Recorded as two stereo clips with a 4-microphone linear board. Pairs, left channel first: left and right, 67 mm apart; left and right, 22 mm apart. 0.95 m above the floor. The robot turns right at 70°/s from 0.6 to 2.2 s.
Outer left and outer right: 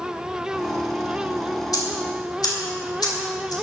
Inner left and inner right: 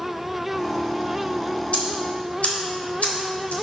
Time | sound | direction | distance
1.7 | ticking | 65° left (ahead or behind) | 2.5 m